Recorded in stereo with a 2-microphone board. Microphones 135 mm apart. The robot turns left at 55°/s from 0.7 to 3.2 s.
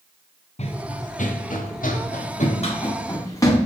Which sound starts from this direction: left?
Running footsteps, at 0.6 s.